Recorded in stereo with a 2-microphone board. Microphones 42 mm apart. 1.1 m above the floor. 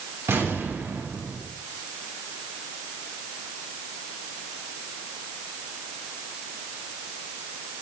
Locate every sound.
0.3 s an explosion: 70° right (ahead or behind), 8.5 m